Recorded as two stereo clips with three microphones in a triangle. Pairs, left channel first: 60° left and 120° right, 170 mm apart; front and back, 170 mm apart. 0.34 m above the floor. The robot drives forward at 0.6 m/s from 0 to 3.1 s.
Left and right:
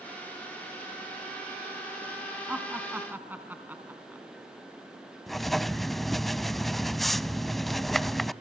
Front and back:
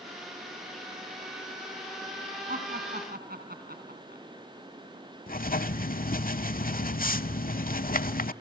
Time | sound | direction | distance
2.5 | laughter | 160° left | 2.5 m
5.3 | writing | 30° right | 0.6 m